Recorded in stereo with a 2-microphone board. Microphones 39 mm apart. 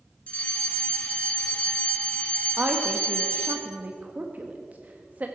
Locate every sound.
0.3 s a fire alarm: 35° left (ahead or behind), 1.8 m
2.6 s a woman speaking: 40° right (ahead or behind), 1.1 m